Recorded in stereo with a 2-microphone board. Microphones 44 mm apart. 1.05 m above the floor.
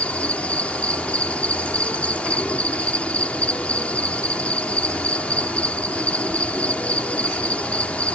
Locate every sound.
0.0 s an insect: 35° left (ahead or behind)